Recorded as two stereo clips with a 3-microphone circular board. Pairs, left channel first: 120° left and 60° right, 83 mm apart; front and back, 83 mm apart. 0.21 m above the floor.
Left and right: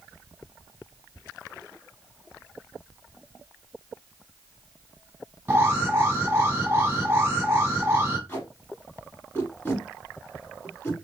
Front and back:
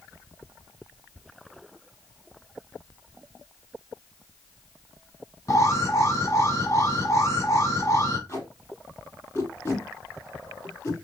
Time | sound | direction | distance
5.5 | an alarm | 10° right | 1.7 m
8.3 | tape being pulled | 55° left | 3 m